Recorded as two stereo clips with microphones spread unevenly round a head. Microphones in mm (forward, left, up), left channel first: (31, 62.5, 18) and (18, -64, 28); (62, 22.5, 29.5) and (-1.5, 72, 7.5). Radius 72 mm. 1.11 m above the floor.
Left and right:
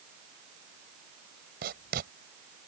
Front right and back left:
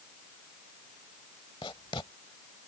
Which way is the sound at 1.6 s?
95° right.